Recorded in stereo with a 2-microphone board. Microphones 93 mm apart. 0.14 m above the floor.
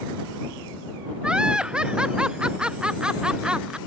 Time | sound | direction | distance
1.2 | laughter | 10° right (ahead or behind) | ?